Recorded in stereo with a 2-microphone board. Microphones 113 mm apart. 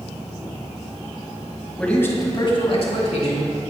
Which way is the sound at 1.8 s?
5° left (ahead or behind).